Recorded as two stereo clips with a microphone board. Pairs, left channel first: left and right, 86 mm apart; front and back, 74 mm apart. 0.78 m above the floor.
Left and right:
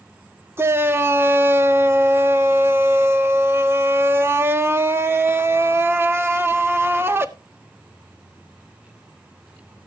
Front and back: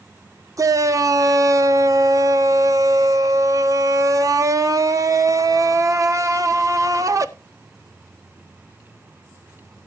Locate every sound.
0.6 s a shout: 150° right, 1.3 m